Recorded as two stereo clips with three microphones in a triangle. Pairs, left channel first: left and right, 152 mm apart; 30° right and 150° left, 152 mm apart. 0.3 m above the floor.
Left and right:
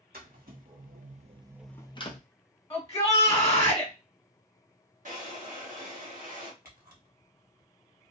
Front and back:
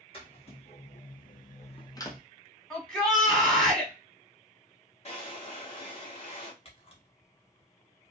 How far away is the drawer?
About 1.2 m.